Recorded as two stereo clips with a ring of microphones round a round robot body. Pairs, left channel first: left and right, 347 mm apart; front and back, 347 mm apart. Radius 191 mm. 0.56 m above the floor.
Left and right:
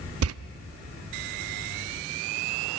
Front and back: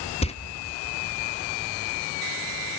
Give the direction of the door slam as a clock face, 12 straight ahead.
2 o'clock.